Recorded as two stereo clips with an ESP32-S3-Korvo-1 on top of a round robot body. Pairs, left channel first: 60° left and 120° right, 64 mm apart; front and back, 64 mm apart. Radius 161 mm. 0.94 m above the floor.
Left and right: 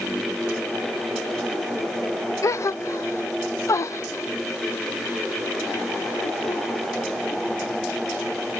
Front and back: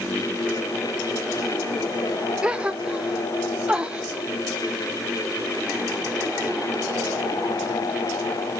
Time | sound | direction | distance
2.4 | a gasp | 105° left | 0.5 m